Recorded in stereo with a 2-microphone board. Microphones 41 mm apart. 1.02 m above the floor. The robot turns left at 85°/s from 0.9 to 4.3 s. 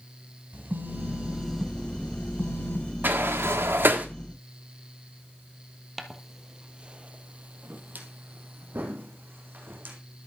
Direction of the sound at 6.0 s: Centre (ahead or behind).